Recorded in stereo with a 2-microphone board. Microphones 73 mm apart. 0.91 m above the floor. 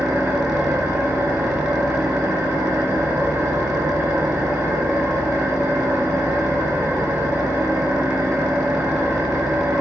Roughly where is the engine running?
Right.